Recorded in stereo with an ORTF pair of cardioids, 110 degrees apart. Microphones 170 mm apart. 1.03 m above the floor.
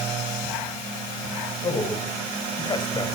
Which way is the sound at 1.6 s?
25° left.